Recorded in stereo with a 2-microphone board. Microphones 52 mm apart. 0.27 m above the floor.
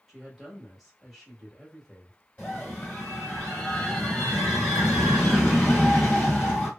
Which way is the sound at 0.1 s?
Centre (ahead or behind).